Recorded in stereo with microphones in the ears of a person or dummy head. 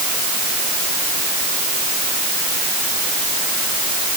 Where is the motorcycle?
No motorcycle in this recording.